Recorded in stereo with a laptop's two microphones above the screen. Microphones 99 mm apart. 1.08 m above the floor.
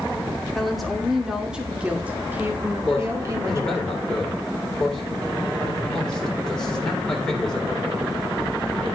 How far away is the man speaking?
About 3.5 m.